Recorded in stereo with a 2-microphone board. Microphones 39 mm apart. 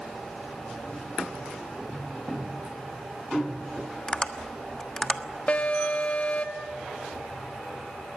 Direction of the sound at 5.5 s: 40° left (ahead or behind).